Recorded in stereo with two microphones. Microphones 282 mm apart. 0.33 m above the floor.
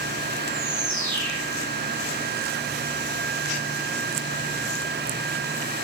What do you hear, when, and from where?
0.5 s a bird: 45° left (ahead or behind), 4.5 m